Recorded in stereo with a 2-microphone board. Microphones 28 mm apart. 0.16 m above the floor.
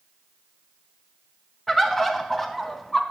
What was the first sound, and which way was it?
A bird, 10° left (ahead or behind).